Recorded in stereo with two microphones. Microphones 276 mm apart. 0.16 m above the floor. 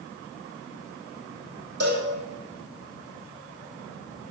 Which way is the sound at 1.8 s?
55° right (ahead or behind).